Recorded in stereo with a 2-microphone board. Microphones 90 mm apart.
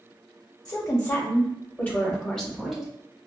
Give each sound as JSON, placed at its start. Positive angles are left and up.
{"t": 0.7, "sound": "a woman speaking", "side_deg": 45, "distance_m": 1.5}